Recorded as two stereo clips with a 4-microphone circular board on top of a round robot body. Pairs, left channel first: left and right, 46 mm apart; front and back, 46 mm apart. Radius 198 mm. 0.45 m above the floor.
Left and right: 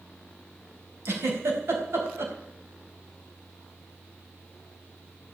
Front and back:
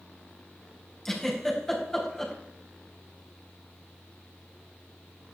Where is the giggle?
75° right, 5 m.